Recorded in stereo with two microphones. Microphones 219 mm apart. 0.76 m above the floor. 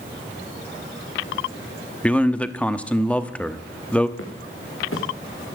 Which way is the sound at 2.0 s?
5° left (ahead or behind).